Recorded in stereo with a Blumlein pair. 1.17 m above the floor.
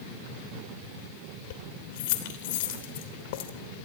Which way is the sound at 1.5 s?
50° left.